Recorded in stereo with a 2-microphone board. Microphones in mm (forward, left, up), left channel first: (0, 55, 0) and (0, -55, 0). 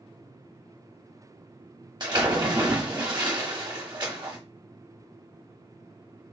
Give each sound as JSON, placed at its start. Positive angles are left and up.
{"t": 2.0, "sound": "a splash", "side_deg": -40, "distance_m": 1.2}